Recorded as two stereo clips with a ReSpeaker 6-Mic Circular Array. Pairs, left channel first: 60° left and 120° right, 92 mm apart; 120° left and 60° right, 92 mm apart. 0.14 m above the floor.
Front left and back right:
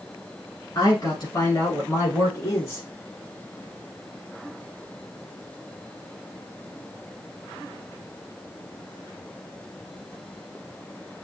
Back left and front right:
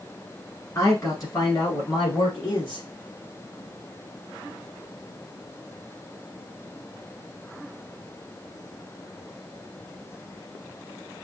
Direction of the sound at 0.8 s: 80° left.